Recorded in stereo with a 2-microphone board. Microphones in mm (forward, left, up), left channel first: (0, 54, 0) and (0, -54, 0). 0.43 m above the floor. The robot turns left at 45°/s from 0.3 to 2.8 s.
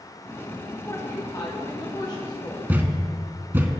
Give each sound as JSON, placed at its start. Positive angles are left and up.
{"t": 0.8, "sound": "a woman speaking", "azimuth_deg": 130, "distance_m": 1.3}
{"t": 2.7, "sound": "a thud", "side_deg": -15, "distance_m": 0.8}